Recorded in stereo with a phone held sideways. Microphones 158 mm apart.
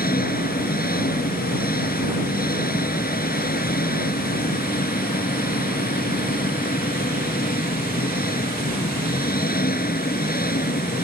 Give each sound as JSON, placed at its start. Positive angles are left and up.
{"t": 0.0, "sound": "an engine running", "side_deg": 75}